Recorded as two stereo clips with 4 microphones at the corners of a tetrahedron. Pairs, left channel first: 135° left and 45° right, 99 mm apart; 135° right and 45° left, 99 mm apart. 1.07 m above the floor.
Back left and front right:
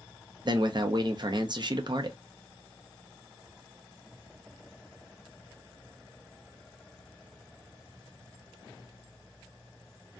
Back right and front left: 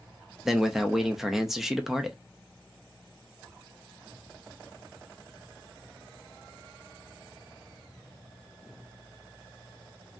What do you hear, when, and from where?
0.5 s a man speaking: 40° right, 0.6 m